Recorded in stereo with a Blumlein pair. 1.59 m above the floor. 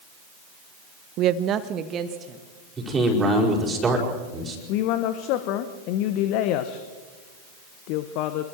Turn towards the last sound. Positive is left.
turn(degrees=40)